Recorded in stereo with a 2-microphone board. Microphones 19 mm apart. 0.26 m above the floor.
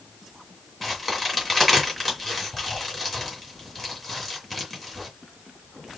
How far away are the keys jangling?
No keys jangling in this recording.